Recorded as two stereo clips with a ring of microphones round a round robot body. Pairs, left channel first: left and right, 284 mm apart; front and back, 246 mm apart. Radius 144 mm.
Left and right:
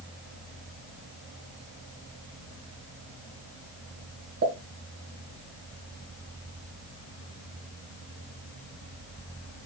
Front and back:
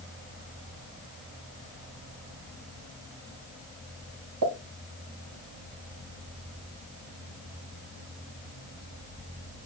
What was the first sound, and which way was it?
A pop, 145° right.